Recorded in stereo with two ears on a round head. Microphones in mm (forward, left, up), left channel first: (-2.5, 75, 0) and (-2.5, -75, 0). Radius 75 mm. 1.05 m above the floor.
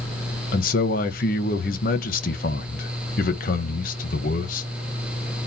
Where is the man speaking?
55° left (ahead or behind), 1.1 m.